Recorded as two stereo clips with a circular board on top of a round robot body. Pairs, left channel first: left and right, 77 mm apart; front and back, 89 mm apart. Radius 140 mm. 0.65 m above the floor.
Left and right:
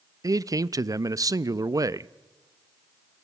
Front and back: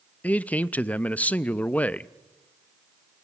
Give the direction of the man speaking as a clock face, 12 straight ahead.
2 o'clock.